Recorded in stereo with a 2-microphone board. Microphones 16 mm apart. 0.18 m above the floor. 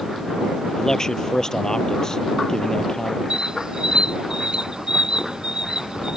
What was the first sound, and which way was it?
A man speaking, 30° left (ahead or behind).